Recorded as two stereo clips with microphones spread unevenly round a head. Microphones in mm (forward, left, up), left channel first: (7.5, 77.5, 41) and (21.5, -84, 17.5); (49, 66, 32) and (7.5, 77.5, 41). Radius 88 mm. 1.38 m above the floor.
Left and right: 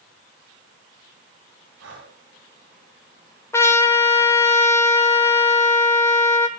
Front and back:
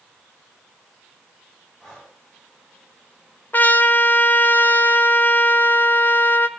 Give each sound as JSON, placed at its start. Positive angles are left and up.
{"t": 1.8, "sound": "breathing", "azimuth_deg": -105, "distance_m": 9.0}
{"t": 3.5, "sound": "a trumpet", "azimuth_deg": 30, "distance_m": 1.6}